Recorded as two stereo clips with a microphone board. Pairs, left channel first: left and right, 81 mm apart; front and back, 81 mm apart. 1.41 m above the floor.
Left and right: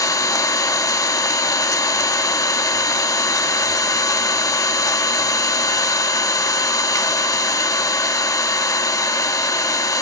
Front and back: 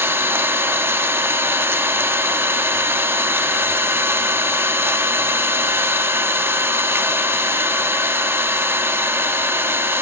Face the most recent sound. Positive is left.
turn(degrees=125)